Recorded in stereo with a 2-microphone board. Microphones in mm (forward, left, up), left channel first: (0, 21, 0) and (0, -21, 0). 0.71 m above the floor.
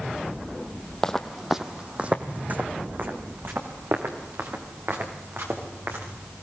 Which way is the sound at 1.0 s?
15° left (ahead or behind).